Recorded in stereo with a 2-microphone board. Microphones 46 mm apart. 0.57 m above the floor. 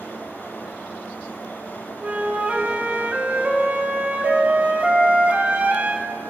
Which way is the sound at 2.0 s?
25° right (ahead or behind).